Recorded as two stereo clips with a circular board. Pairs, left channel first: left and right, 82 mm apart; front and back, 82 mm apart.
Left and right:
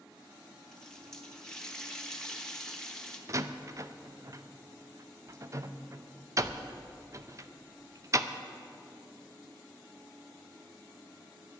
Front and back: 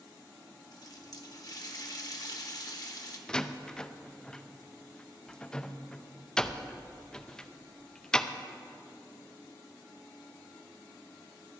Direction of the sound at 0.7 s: 10° left.